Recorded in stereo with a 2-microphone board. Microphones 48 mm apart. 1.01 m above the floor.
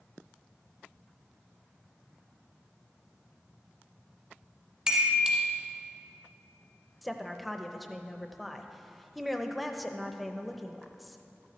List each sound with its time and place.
4.9 s a chime: 20° right (ahead or behind), 1.1 m
7.0 s a woman speaking: centre (ahead or behind), 0.6 m